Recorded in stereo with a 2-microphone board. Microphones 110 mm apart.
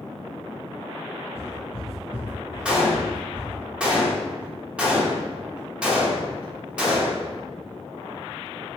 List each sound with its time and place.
1.4 s footsteps: 30° left (ahead or behind), 1.0 m; by 3.5 s 50° right (ahead or behind), 1.7 m
2.6 s a gunshot: 10° right (ahead or behind), 0.8 m